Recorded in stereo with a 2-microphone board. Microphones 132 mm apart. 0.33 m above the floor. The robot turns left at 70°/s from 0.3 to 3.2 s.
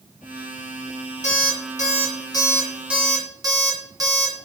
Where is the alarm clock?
65° left (ahead or behind), 2 m; by 4.5 s 30° right (ahead or behind), 2 m.